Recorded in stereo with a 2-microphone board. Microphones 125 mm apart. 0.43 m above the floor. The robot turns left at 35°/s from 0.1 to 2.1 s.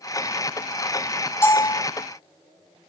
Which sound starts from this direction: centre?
A bell, at 1.4 s.